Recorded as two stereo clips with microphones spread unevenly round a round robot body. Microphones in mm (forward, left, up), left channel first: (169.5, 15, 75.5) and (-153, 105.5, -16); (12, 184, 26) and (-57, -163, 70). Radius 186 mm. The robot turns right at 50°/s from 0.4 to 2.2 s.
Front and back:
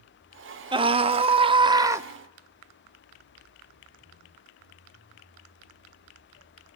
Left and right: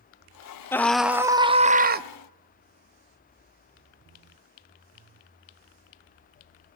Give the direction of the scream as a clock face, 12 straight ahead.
7 o'clock.